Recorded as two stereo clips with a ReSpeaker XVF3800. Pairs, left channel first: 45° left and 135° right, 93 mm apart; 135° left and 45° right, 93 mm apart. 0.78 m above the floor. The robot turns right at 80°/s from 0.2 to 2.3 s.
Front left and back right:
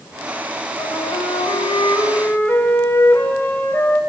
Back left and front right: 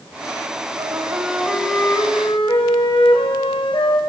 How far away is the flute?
About 2.5 m.